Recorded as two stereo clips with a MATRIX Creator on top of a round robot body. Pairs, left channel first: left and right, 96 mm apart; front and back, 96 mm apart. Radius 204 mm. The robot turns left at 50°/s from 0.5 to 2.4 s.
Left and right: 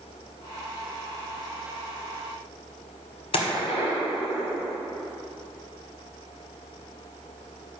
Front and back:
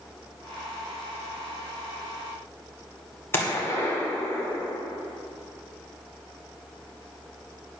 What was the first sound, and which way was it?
A gunshot, 65° left.